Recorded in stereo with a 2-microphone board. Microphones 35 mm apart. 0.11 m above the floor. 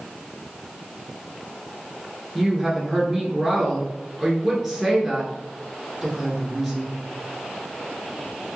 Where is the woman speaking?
10° right (ahead or behind), 1.3 m.